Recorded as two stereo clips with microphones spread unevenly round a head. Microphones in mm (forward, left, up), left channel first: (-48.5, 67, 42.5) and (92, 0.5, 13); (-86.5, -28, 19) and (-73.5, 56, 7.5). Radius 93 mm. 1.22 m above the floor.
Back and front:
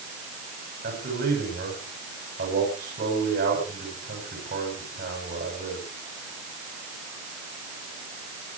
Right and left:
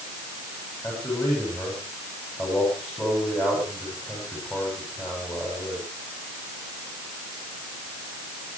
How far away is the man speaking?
About 9.5 m.